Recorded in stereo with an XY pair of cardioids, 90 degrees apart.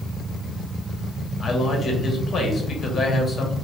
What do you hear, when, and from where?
1.4 s a man speaking: 55° left, 1.1 m